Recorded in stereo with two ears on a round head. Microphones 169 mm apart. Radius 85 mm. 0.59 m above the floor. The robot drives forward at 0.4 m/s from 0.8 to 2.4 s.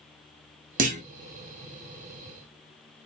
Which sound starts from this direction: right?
A clunk, at 0.8 s.